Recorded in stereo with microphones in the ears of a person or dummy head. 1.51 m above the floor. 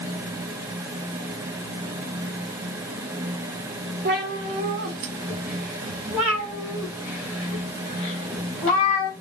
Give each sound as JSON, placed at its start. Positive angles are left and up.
{"t": 4.0, "sound": "a cat meowing", "side_deg": -55, "distance_m": 1.8}